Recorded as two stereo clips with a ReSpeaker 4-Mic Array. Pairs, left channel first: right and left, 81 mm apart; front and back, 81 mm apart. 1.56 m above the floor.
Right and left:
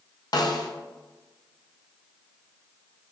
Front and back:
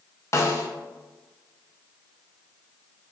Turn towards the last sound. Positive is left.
turn(degrees=-55)